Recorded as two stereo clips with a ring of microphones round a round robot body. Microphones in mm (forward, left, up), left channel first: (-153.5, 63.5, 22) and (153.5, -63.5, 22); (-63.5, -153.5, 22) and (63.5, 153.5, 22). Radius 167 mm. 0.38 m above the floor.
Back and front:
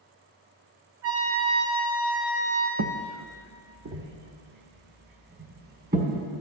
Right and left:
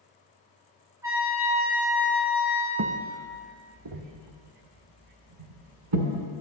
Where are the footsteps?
15° left, 1.1 m; by 6.3 s 45° left, 3.5 m.